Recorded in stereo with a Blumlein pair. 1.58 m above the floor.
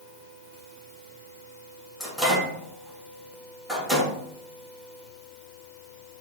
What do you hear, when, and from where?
2.0 s a microwave: 5° right, 2 m